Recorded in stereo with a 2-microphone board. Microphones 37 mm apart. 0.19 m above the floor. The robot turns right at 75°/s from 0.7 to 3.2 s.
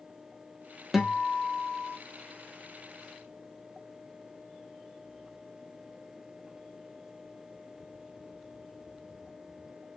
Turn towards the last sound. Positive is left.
turn(degrees=-5)